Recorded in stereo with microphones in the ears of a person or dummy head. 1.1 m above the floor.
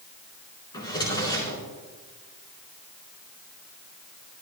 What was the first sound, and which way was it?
A drawer, 25° left (ahead or behind).